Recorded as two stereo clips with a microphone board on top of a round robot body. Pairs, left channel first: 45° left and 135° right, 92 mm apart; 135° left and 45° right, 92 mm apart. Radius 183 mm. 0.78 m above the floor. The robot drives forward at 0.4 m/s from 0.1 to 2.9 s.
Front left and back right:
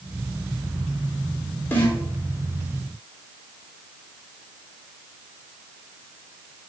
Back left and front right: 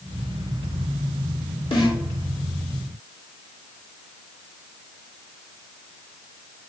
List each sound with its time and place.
1.7 s a snare drum: 110° left, 2.5 m; by 2.0 s 115° left, 3 m